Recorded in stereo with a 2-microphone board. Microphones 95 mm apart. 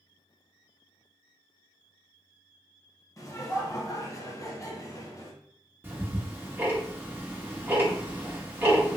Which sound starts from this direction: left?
Laughter, at 3.2 s.